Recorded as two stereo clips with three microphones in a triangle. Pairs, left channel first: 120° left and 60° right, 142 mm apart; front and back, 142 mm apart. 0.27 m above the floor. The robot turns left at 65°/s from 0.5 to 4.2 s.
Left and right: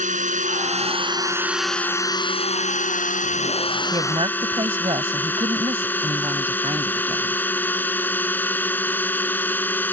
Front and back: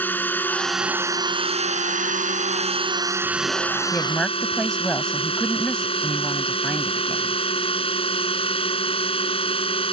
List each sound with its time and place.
0.0 s a drone: 75° right; by 9.9 s 45° left
3.9 s a woman speaking: 60° right; by 7.4 s 80° right